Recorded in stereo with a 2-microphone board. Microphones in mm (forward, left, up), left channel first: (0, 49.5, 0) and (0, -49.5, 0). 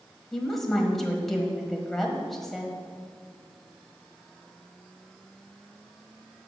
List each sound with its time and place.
0.3 s a woman speaking: 5° left (ahead or behind), 1.6 m